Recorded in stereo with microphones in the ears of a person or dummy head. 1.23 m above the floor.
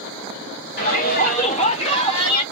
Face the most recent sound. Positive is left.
turn(degrees=25)  # may be behind; listen again after turning